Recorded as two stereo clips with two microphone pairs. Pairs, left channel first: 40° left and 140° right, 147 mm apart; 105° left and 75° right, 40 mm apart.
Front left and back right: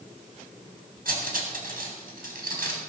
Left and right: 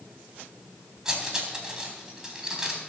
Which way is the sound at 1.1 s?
150° right.